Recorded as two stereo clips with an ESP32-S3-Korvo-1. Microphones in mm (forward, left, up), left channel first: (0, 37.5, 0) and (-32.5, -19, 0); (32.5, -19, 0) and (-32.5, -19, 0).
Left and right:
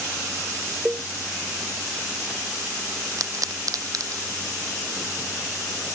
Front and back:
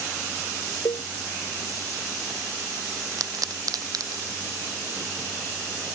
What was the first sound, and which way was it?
A cowbell, 45° right.